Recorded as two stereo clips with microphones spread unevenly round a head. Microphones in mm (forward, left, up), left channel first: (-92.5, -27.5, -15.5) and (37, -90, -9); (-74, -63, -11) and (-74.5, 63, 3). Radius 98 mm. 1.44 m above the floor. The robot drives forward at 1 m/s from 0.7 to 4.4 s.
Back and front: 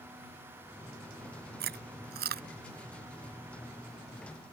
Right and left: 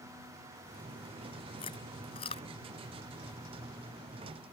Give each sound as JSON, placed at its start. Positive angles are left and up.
{"t": 1.6, "sound": "chewing", "azimuth_deg": -25}